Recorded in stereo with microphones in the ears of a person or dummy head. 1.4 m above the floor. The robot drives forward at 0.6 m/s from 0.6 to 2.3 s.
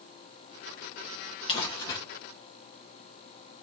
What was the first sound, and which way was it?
Crumpling, 25° left (ahead or behind).